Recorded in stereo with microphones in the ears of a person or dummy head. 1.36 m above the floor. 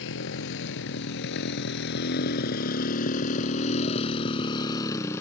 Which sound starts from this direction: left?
A motorcycle, at 0.0 s.